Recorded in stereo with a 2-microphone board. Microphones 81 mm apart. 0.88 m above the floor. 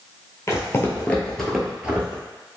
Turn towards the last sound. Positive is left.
turn(degrees=-25)  # may be behind; listen again after turning